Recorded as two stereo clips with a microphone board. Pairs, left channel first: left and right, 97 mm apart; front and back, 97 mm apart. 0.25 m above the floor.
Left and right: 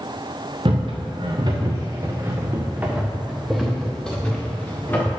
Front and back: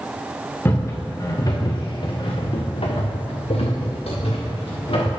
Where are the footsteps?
65° right, 2 m; by 5.1 s 20° left, 3 m.